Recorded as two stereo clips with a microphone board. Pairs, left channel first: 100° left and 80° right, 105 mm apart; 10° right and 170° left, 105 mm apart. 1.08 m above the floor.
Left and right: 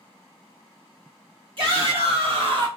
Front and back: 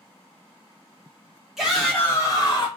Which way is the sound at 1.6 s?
105° right.